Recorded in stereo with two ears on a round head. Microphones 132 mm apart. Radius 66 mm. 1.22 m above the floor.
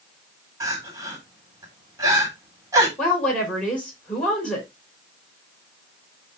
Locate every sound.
0.6 s crying: 20° right (ahead or behind), 3.5 m
3.0 s a woman speaking: 5° left (ahead or behind), 5.5 m